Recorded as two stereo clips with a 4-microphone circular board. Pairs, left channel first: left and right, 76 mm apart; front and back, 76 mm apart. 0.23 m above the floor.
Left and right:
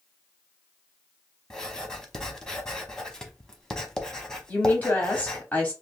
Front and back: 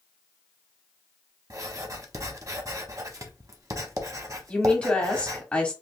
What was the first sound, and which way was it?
Writing, 170° left.